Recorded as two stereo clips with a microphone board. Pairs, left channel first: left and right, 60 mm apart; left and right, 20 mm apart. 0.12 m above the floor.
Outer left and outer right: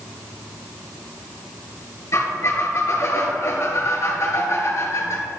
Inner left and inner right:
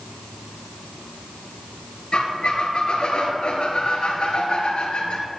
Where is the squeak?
50° left (ahead or behind), 1.7 m.